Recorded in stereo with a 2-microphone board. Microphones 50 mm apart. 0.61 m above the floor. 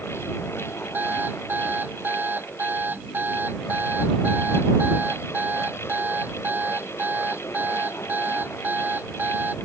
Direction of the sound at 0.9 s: 40° right (ahead or behind).